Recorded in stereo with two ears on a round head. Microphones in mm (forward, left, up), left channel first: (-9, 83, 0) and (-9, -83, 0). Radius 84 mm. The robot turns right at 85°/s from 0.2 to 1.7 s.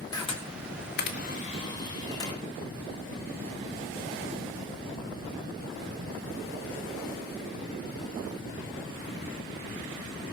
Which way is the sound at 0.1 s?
20° left (ahead or behind).